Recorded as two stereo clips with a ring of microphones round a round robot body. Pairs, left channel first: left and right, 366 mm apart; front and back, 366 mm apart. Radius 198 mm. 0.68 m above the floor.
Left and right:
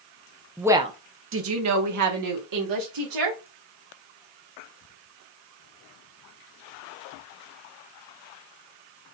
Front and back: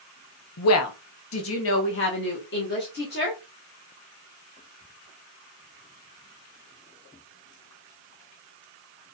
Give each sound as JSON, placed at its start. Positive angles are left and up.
{"t": 0.6, "sound": "a woman speaking", "azimuth_deg": 0, "distance_m": 0.8}